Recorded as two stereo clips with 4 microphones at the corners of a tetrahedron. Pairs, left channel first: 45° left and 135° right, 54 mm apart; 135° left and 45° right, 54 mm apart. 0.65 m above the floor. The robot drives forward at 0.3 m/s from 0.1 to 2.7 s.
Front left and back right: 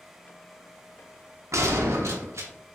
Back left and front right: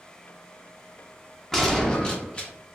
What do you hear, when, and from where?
1.5 s a gunshot: 140° right, 0.5 m; by 2.5 s 155° right, 0.8 m